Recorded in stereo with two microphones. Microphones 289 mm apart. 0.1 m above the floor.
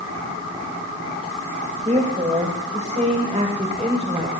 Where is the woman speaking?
25° right (ahead or behind), 8.5 m; by 4.3 s 20° right (ahead or behind), 6.5 m.